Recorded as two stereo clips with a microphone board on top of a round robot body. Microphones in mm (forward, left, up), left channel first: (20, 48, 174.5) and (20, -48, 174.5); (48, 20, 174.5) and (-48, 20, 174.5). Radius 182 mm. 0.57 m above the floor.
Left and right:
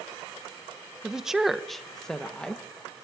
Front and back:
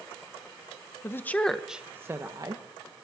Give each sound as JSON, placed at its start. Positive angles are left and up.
{"t": 1.0, "sound": "a woman speaking", "azimuth_deg": -15, "distance_m": 1.1}